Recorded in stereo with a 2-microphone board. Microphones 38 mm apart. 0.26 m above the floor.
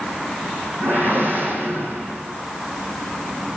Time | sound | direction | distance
0.8 | a whoosh | 65° right (ahead or behind) | 3.5 m